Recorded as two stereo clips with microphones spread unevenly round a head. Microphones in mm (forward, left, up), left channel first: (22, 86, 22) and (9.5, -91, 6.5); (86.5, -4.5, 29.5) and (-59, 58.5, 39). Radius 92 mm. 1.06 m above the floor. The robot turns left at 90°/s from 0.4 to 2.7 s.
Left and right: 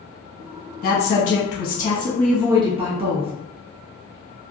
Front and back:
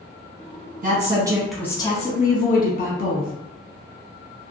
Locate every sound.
0.8 s a woman speaking: 130° left, 1.0 m; by 3.3 s 40° right, 1.0 m